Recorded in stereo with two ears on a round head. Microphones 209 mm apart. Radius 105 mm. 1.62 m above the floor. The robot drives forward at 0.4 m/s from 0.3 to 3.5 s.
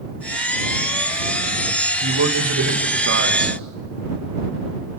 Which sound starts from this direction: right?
A man speaking, at 2.0 s.